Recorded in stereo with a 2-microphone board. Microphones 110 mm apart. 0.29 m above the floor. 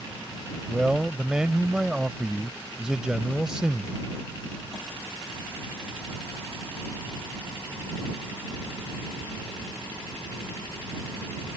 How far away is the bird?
No bird in this recording.